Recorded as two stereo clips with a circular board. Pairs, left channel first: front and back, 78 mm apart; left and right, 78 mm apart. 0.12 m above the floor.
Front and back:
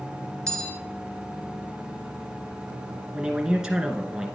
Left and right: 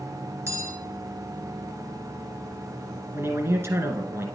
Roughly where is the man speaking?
Right.